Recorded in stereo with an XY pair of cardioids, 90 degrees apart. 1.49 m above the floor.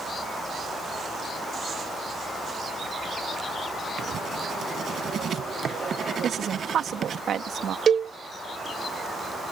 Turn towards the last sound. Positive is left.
turn(degrees=-55)